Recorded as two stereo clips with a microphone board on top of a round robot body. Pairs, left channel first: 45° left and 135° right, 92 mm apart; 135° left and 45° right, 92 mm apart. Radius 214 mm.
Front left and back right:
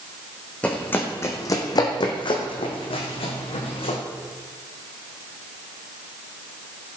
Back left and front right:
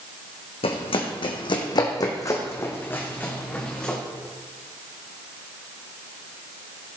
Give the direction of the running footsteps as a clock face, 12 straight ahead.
8 o'clock.